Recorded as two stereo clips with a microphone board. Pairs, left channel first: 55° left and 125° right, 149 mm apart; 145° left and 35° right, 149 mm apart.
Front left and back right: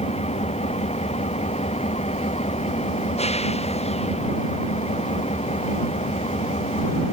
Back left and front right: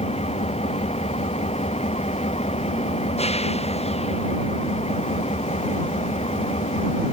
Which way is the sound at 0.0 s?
100° left.